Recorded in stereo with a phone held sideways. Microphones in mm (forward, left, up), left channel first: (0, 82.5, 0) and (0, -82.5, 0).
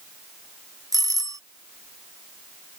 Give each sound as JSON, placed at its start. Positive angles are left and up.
{"t": 0.9, "sound": "a doorbell", "side_deg": -20}